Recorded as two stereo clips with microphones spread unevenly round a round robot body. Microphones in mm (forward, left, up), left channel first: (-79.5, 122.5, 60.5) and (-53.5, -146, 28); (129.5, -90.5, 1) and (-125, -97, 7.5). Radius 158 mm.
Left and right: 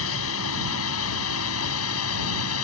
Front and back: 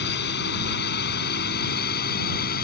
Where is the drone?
55° left; by 2.6 s 60° left.